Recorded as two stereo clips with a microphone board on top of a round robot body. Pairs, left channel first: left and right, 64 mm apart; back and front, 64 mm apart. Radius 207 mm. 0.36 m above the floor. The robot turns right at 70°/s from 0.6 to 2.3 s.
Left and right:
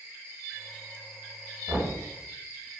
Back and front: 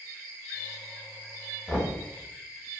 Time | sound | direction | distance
1.7 | knocking | 105° right | 1.4 m